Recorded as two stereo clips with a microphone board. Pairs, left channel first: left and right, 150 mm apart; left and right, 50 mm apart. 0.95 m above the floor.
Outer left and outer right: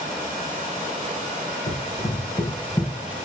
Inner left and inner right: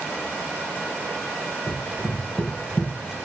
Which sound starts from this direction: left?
Running footsteps, at 1.7 s.